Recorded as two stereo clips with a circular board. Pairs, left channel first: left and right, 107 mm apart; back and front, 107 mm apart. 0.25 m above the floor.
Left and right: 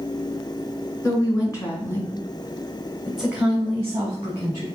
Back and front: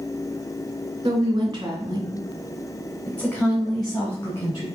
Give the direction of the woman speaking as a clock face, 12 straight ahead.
11 o'clock.